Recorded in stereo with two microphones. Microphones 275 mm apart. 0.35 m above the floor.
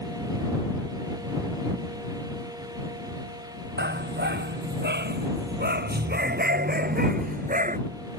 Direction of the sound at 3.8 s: 40° right (ahead or behind).